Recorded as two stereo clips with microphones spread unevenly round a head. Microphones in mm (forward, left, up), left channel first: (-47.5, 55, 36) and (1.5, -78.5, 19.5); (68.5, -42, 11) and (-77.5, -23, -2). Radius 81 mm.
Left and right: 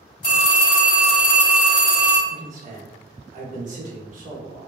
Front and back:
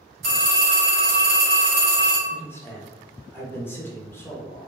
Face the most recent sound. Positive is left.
turn(degrees=-85)